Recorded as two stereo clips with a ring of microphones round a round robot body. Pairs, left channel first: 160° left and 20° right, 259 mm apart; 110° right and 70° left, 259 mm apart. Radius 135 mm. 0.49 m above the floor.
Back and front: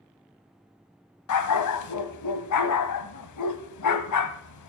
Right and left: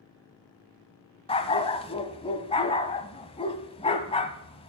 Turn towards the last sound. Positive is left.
turn(degrees=180)